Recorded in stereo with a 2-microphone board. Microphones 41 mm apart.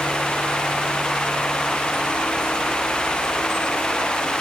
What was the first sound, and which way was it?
Only background noise.